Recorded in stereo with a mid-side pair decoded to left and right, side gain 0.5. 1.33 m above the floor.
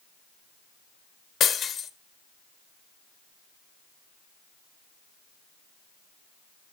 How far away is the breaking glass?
About 1.6 m.